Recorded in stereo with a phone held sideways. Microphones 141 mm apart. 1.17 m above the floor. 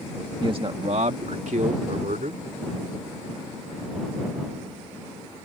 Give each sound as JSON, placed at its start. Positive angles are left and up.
{"t": 0.4, "sound": "a man speaking", "side_deg": -35}